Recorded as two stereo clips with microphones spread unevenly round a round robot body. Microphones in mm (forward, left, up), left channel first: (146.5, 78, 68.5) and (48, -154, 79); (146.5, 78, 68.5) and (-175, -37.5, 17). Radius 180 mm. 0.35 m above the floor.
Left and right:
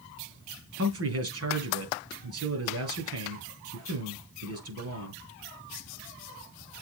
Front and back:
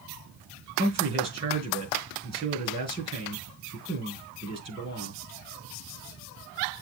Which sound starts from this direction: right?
A man speaking, at 0.8 s.